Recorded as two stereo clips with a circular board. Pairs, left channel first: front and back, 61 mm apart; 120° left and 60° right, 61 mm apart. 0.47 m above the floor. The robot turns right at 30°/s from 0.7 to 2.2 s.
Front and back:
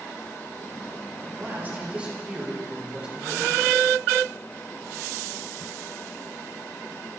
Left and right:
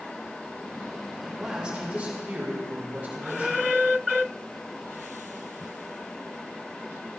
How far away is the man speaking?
About 1.8 m.